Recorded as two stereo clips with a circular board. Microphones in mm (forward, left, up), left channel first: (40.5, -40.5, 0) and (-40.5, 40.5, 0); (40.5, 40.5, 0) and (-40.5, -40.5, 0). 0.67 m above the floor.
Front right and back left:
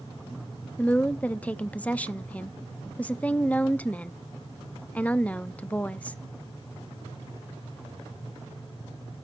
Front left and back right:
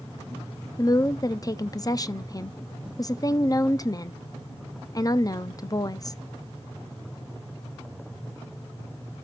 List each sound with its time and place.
0.8 s a woman speaking: 25° left, 0.5 m